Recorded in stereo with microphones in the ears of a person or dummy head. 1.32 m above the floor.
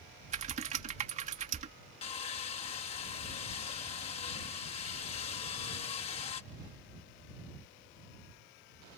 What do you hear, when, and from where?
0.3 s typing on a keyboard: 30° right (ahead or behind)
2.0 s sawing: 40° left (ahead or behind)